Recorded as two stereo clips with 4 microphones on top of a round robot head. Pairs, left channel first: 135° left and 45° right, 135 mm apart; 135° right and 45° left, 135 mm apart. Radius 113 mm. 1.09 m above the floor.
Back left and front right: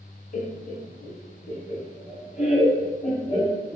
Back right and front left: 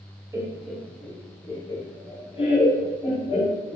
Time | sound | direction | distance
0.3 | laughter | 115° left | 0.6 m